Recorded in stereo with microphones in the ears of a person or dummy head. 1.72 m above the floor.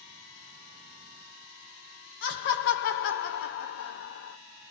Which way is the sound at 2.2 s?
55° left (ahead or behind).